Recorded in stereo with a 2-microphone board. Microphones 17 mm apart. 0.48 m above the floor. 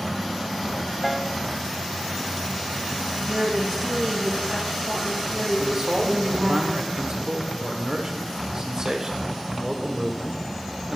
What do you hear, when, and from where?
1.0 s a piano: 10° right (ahead or behind), 0.7 m
3.3 s a woman speaking: 15° right (ahead or behind), 3.5 m
5.6 s a man speaking: 45° right (ahead or behind), 1.8 m